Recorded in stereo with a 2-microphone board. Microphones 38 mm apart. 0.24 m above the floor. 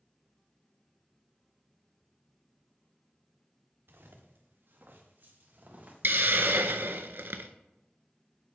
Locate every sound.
3.9 s footsteps: 80° right, 1.9 m; by 7.0 s 35° right (ahead or behind), 3.5 m
6.0 s a hiss: 75° right (ahead or behind), 0.5 m